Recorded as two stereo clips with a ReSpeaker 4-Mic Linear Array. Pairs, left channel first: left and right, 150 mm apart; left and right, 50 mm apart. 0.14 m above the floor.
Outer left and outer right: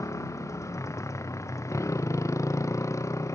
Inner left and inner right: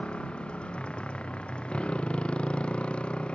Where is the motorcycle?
20° left (ahead or behind).